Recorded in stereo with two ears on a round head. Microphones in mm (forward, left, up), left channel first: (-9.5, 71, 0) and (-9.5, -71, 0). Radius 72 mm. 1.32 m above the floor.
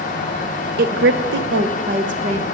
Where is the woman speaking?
65° right (ahead or behind), 0.8 m; by 2.4 s 40° right (ahead or behind), 1.5 m.